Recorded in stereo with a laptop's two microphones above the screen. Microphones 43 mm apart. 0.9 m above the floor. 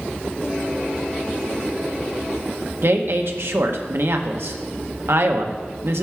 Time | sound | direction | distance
2.8 | a woman speaking | 65° right (ahead or behind) | 1.0 m